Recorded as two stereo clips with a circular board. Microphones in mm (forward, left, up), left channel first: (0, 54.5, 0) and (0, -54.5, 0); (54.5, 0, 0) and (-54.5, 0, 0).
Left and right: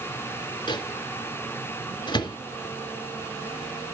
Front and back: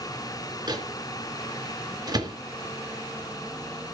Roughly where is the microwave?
Behind left.